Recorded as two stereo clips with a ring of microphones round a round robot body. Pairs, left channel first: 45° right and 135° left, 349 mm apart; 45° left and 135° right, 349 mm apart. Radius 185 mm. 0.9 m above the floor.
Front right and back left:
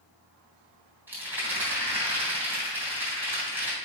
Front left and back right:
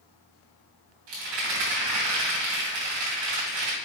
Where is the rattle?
140° right, 3 m.